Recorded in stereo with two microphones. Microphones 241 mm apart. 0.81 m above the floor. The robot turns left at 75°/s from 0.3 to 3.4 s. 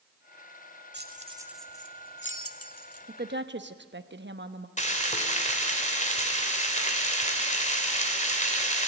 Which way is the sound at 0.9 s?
50° right (ahead or behind).